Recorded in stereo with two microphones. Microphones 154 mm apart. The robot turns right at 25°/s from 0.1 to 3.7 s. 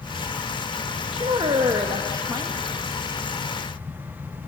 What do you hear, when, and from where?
1.1 s a woman speaking: 60° right, 1.1 m; by 2.5 s 25° right, 1.1 m